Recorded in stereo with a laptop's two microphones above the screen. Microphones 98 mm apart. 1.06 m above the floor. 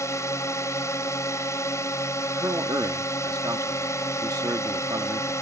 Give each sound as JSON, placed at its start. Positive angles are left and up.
{"t": 0.0, "sound": "a drone", "side_deg": 30}
{"t": 2.4, "sound": "a man speaking", "side_deg": -40}